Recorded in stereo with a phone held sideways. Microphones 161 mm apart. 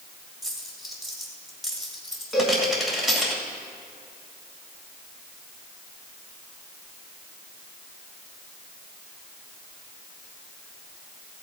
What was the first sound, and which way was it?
A dropped coin, centre (ahead or behind).